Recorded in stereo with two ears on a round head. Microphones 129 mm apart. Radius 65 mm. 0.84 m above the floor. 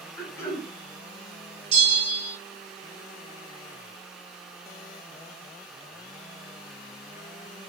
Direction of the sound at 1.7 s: 45° right (ahead or behind).